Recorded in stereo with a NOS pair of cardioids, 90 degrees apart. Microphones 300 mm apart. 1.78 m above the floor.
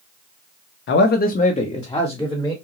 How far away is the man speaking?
About 0.7 m.